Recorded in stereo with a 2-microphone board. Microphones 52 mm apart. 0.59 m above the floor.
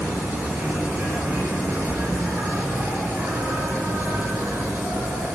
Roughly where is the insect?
Right.